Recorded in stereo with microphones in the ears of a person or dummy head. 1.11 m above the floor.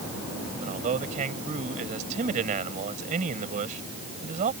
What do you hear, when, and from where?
0.6 s a man speaking: 45° right (ahead or behind)